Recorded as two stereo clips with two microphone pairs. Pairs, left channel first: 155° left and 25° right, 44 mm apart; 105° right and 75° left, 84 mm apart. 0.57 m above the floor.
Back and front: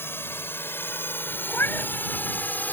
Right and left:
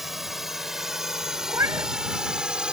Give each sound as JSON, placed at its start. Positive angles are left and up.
{"t": 0.0, "sound": "a drone", "azimuth_deg": 160}
{"t": 1.5, "sound": "a cat meowing", "azimuth_deg": 125}